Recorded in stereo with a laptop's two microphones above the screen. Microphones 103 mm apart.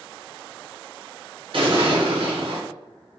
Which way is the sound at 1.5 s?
60° right (ahead or behind).